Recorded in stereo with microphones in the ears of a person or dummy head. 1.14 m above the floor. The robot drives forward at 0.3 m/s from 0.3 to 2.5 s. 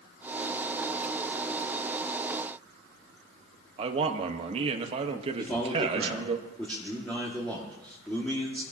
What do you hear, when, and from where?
3.8 s a man speaking: 30° right (ahead or behind), 1.3 m
5.4 s a man speaking: 10° left (ahead or behind), 2 m